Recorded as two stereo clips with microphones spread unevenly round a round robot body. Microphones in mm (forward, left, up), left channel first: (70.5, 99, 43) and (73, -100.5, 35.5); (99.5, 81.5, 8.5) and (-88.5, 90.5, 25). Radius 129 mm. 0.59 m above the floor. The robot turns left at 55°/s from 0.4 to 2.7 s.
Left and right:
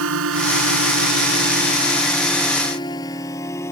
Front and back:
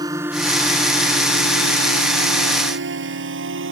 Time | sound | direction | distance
0.0 | a drone | 105° right | ?